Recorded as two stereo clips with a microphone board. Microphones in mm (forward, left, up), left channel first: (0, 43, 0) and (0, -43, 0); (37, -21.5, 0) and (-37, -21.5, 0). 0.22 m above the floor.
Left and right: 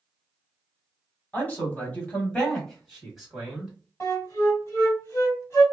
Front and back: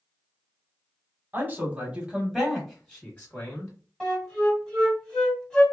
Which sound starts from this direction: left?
A flute, at 4.0 s.